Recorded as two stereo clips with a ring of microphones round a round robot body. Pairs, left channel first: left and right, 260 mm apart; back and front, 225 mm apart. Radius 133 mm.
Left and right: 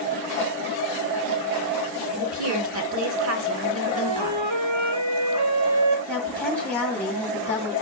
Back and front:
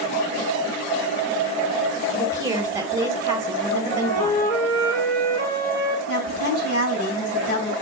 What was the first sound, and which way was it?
A woman speaking, 75° right.